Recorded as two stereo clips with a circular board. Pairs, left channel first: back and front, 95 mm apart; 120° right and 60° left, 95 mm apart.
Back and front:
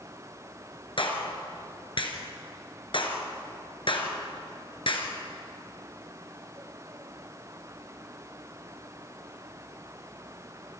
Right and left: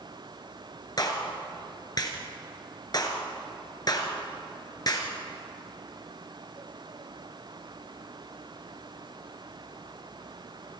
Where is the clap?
160° right, 2.5 m.